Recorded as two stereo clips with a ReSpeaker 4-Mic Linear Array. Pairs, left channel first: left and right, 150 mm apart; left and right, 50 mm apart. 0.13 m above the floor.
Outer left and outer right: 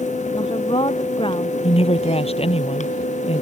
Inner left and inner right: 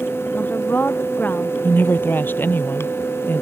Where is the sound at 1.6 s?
45° left (ahead or behind).